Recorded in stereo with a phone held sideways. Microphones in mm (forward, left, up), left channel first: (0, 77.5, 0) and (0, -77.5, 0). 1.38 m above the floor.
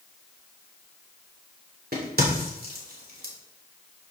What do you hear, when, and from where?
1.9 s a crack: 80° right, 3 m